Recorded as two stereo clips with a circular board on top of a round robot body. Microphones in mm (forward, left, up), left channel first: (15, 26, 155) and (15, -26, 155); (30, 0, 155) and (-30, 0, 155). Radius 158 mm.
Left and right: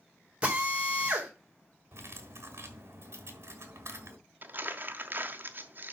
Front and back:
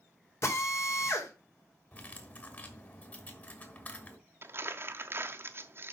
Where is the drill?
30° right, 3 m.